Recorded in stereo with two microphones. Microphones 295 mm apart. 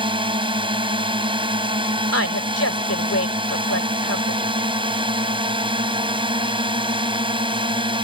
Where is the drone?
15° right (ahead or behind).